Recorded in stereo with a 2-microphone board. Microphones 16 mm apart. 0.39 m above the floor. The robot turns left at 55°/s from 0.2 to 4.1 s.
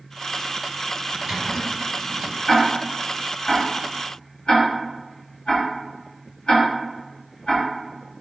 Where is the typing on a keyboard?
25° right (ahead or behind), 1.9 m; by 2.4 s 25° left (ahead or behind), 1.9 m.